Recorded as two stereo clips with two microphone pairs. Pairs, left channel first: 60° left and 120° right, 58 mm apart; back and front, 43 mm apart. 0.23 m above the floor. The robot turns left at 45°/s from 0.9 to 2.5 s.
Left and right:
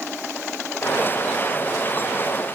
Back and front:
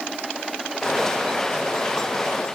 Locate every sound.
Only background noise.